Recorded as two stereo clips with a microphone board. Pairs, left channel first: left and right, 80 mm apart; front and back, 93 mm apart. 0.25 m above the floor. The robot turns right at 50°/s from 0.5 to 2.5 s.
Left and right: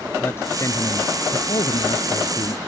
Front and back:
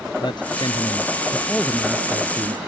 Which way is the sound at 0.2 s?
30° left.